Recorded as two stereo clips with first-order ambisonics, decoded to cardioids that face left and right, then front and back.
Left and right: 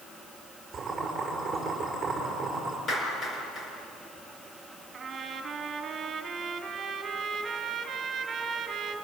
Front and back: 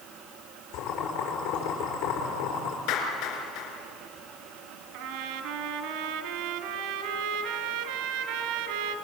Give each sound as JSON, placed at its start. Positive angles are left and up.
{"t": 0.7, "sound": "boiling", "azimuth_deg": -10, "distance_m": 7.0}
{"t": 2.9, "sound": "a clap", "azimuth_deg": 20, "distance_m": 5.0}
{"t": 4.9, "sound": "a trumpet", "azimuth_deg": -160, "distance_m": 2.0}